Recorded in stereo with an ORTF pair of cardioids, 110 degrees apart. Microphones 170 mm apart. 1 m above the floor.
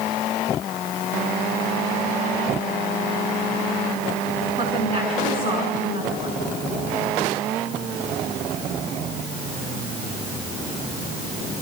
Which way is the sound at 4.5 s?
40° right.